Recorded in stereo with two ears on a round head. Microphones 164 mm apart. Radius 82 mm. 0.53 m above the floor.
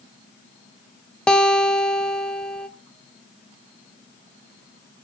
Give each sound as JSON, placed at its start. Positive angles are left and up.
{"t": 1.3, "sound": "a guitar", "side_deg": 5, "distance_m": 1.3}